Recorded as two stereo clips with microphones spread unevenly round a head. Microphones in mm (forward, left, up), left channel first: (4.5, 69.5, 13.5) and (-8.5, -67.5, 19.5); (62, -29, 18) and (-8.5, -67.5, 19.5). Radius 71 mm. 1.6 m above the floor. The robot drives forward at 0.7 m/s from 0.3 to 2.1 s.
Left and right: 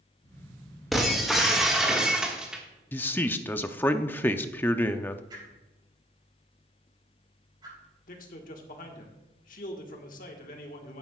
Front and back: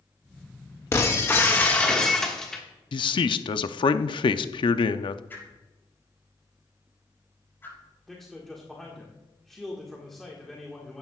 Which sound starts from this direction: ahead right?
A whoosh, at 5.3 s.